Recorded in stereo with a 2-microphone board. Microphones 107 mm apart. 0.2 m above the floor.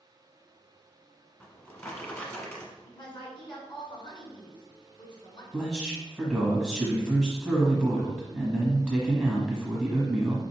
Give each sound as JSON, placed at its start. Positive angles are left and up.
{"t": 1.4, "sound": "a drawer", "side_deg": 20, "distance_m": 1.1}
{"t": 2.9, "sound": "a woman speaking", "side_deg": 50, "distance_m": 1.6}
{"t": 5.5, "sound": "a man speaking", "side_deg": -5, "distance_m": 1.2}